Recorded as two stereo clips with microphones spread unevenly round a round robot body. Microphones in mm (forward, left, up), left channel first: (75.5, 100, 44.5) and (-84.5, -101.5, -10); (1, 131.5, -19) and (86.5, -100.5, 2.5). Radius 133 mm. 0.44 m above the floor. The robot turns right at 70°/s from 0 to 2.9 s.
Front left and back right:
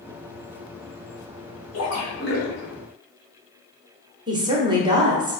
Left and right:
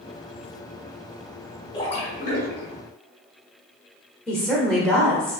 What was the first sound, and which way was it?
A splash, 50° left.